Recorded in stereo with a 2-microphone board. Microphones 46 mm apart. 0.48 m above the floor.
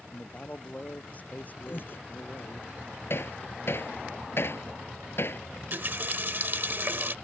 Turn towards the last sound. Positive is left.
turn(degrees=-50)  # may be behind; listen again after turning